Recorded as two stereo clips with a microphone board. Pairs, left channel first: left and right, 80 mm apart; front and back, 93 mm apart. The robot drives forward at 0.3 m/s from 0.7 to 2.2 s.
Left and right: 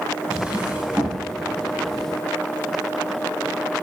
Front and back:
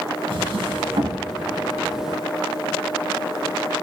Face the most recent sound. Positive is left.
turn(degrees=-170)